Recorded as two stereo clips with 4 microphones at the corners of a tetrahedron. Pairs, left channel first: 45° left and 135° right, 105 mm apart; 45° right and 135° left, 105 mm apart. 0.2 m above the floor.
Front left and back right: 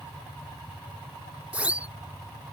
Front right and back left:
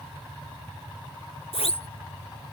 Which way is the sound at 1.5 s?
60° right.